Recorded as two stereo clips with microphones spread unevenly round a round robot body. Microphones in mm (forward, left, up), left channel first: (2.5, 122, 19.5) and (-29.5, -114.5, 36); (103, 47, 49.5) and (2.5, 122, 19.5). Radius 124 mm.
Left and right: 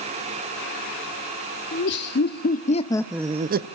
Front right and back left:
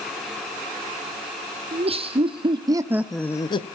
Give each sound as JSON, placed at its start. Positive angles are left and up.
{"t": 1.7, "sound": "laughter", "azimuth_deg": 120, "distance_m": 1.8}